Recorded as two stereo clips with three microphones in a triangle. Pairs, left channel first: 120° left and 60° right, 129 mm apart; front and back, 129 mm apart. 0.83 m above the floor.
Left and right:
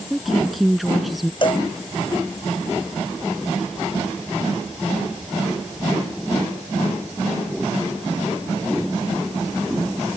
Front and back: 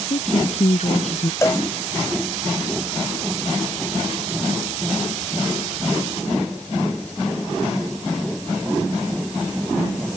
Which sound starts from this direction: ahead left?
A woman speaking, at 0.1 s.